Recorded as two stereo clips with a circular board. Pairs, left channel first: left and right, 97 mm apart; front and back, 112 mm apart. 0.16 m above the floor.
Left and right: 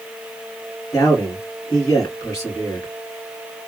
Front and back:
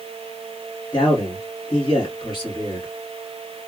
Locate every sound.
0.9 s a man speaking: 40° left, 2.5 m